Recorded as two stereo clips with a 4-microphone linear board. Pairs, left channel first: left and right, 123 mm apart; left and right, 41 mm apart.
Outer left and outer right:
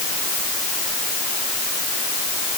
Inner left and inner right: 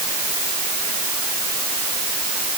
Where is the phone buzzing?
No phone buzzing in this recording.